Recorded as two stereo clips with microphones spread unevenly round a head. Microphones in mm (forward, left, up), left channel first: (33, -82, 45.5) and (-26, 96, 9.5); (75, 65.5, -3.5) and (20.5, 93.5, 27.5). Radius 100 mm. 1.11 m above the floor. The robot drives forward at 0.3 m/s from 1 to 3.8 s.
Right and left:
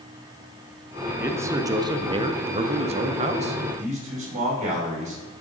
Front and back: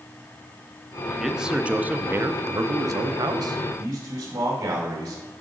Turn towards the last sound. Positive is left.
turn(degrees=165)